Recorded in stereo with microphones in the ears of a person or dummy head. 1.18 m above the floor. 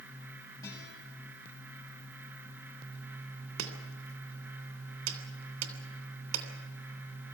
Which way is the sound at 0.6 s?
20° left (ahead or behind).